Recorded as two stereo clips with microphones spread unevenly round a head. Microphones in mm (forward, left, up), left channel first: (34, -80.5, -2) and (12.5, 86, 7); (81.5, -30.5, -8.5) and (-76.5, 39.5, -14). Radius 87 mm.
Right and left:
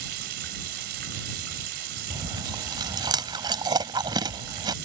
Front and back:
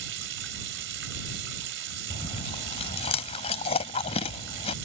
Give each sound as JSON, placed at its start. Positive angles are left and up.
{"t": 0.0, "sound": "running water", "azimuth_deg": 135}
{"t": 2.1, "sound": "chewing", "azimuth_deg": 30}